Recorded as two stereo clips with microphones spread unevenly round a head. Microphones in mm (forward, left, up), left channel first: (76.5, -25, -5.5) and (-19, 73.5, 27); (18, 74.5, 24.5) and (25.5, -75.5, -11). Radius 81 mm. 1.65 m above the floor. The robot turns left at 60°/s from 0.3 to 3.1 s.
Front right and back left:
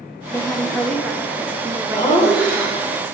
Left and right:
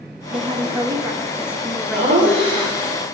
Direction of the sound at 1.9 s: 115° right.